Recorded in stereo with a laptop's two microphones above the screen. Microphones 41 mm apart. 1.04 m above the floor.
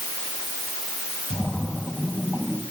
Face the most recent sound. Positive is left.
turn(degrees=25)  # may be behind; listen again after turning